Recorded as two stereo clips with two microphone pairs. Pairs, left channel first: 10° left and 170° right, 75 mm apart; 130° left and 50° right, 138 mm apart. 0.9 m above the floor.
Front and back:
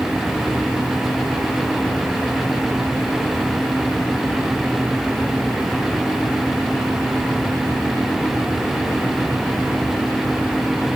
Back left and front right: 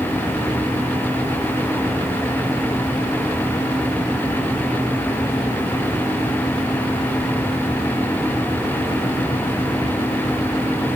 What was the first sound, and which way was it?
Only background noise.